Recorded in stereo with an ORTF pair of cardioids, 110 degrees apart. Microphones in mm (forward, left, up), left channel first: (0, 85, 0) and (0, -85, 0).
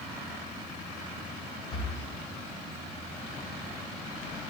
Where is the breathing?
35° left, 6.5 m.